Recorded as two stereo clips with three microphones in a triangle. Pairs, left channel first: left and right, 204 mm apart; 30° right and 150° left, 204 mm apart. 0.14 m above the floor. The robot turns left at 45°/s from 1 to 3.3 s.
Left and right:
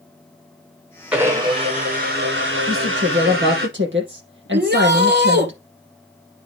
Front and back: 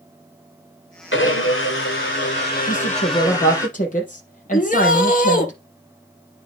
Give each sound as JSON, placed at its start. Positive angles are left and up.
{"t": 1.1, "sound": "a blender", "azimuth_deg": -5, "distance_m": 5.5}
{"t": 2.7, "sound": "a woman speaking", "azimuth_deg": -50, "distance_m": 5.0}
{"t": 4.5, "sound": "a shout", "azimuth_deg": -70, "distance_m": 3.0}